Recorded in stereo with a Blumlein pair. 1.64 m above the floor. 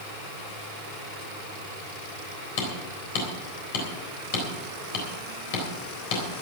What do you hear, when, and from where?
2.6 s hammering: 45° left, 3.5 m